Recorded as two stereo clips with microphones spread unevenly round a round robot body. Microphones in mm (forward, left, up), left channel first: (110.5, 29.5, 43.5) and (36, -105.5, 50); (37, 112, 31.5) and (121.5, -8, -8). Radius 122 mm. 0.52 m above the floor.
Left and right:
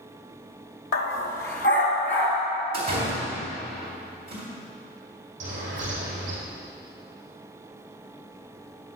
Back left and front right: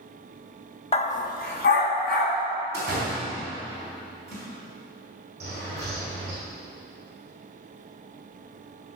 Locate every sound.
0.9 s a dog barking: 80° left, 0.9 m; by 2.4 s 130° left, 2 m
2.7 s a door slam: 155° right, 2.5 m
5.4 s a bird: 135° right, 3.5 m